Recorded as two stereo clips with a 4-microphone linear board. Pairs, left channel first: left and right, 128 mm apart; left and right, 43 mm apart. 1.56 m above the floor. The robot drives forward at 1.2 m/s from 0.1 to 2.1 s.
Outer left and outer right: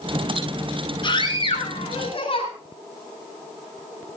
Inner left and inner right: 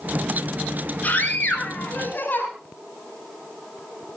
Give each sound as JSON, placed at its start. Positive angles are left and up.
{"t": 1.0, "sound": "a scream", "side_deg": 40, "distance_m": 7.5}